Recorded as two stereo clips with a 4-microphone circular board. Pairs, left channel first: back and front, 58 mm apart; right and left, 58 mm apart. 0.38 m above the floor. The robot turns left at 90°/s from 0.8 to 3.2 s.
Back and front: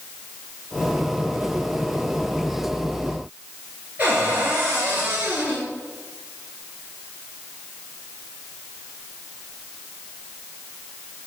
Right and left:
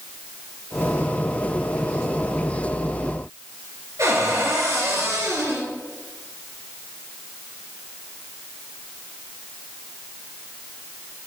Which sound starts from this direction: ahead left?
A cupboard door, at 4.0 s.